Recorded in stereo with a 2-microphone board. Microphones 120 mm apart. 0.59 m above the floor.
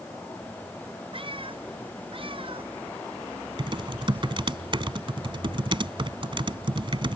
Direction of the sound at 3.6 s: 45° right (ahead or behind).